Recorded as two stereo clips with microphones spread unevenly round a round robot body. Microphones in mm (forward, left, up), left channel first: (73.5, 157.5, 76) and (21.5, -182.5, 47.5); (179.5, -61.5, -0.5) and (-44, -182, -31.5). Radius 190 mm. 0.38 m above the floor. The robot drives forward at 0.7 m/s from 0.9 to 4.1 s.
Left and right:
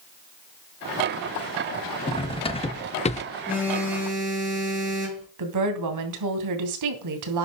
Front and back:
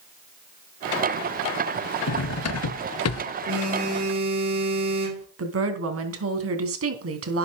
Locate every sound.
2.1 s cutlery clinking: 5° left, 1.5 m; by 3.2 s 10° left, 0.8 m
3.5 s a phone buzzing: 175° left, 7.5 m
5.4 s a woman speaking: 130° right, 3 m